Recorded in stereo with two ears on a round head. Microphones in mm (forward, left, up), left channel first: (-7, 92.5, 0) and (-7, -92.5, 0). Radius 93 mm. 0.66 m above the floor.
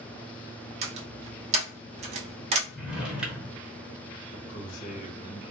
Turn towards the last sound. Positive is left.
turn(degrees=40)  # may be behind; listen again after turning